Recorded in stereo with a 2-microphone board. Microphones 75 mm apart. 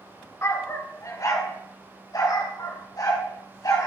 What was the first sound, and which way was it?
A dog barking, 40° left (ahead or behind).